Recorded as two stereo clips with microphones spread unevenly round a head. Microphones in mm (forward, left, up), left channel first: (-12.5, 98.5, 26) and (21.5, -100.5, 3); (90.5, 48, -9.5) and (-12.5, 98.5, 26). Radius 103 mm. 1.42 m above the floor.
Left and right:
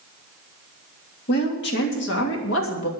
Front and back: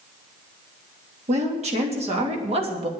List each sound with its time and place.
1.3 s a woman speaking: 140° left, 3 m; by 2.9 s 120° left, 2.5 m